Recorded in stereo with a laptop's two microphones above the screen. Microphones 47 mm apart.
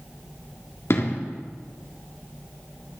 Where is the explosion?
65° left (ahead or behind), 1.8 m.